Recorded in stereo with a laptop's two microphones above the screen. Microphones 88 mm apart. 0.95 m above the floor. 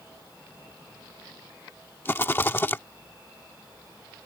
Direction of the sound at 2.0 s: 25° left (ahead or behind).